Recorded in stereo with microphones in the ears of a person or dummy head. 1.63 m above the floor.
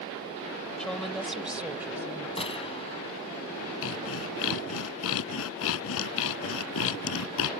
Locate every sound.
0.8 s a woman speaking: 5° left (ahead or behind); by 2.3 s 5° right (ahead or behind)
2.4 s a gunshot: 25° left (ahead or behind)
3.8 s sawing: 80° left